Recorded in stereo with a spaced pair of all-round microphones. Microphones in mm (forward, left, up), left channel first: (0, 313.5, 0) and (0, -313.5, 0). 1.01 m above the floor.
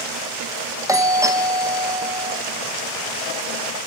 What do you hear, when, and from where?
0.9 s a doorbell: 5° right (ahead or behind), 1.7 m